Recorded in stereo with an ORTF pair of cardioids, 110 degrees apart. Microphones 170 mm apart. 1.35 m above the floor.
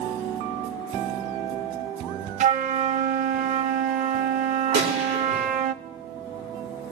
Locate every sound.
2.4 s a flute: 55° right, 0.7 m
4.7 s a gunshot: 65° right, 5 m